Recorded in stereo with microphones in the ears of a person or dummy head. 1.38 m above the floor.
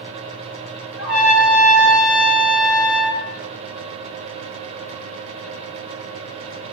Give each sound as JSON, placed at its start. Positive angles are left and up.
{"t": 1.0, "sound": "a trumpet", "side_deg": 0, "distance_m": 3.5}